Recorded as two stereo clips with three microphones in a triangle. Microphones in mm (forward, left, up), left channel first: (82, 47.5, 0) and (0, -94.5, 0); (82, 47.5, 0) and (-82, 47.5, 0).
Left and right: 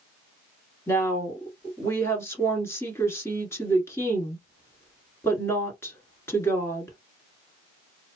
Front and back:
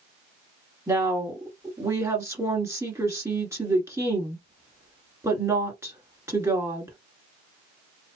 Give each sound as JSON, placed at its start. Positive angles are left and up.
{"t": 0.9, "sound": "a woman speaking", "azimuth_deg": 120, "distance_m": 1.3}